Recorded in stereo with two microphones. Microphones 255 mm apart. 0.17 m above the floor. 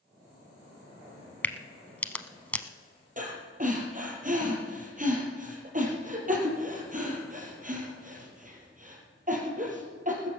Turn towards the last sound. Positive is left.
turn(degrees=-30)  # may be behind; listen again after turning